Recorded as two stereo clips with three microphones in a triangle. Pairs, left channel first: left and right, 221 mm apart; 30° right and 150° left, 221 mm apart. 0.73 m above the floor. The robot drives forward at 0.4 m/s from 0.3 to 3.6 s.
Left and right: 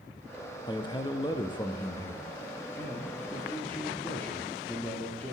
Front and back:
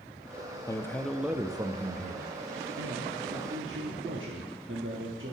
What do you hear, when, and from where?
0.7 s a man speaking: 30° left, 0.6 m; by 5.3 s 170° left, 1.0 m